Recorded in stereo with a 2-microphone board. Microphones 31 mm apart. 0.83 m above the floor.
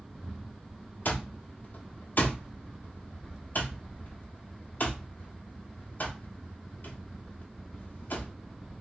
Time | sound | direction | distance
1.1 | an alarm clock | 65° left (ahead or behind) | 1.1 m